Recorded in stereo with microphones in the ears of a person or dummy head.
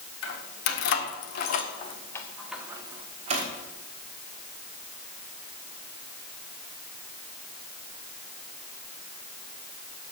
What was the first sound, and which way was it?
Keys jangling, 75° left (ahead or behind).